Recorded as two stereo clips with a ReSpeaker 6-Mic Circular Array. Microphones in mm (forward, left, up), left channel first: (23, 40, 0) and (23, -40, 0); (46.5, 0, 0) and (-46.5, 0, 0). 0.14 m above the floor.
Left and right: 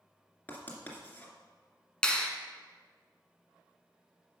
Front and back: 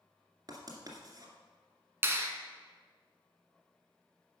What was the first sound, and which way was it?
Writing, 155° left.